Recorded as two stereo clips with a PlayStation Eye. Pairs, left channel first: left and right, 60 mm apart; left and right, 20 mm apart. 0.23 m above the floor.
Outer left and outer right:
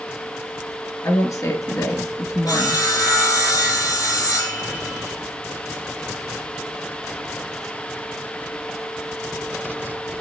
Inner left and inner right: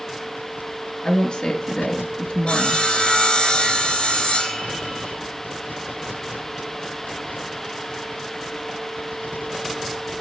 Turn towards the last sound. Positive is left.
turn(degrees=70)  # may be behind; listen again after turning